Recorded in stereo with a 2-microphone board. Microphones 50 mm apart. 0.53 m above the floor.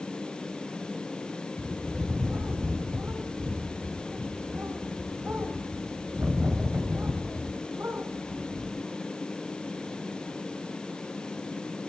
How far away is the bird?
About 3 m.